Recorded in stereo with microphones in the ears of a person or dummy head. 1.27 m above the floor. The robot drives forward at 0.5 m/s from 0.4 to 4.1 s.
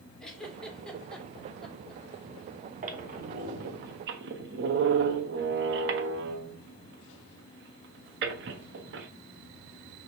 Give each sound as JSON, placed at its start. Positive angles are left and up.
{"t": 0.2, "sound": "a giggle", "side_deg": 0, "distance_m": 2.0}
{"t": 2.8, "sound": "a squeak", "side_deg": -50, "distance_m": 1.7}